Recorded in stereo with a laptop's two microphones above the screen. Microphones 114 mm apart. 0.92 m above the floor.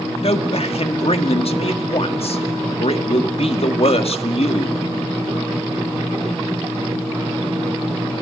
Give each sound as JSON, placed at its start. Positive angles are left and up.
{"t": 0.2, "sound": "a man speaking", "side_deg": 60, "distance_m": 1.7}